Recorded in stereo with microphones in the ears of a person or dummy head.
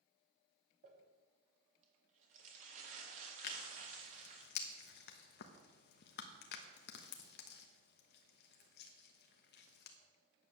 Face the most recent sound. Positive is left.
turn(degrees=60)  # may be behind; listen again after turning